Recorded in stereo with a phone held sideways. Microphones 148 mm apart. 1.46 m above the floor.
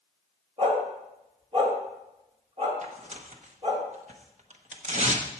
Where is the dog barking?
40° right (ahead or behind), 2.0 m.